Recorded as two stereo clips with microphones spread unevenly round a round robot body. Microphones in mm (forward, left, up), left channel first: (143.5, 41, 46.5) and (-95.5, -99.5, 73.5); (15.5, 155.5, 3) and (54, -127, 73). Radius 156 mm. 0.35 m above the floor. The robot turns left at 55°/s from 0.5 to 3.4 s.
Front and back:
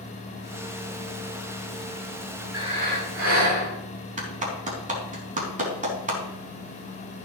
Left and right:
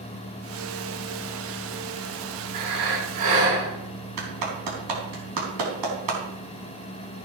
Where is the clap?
85° right, 4 m.